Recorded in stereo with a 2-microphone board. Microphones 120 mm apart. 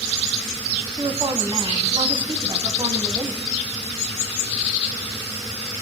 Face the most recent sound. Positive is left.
turn(degrees=-50)  # may be behind; listen again after turning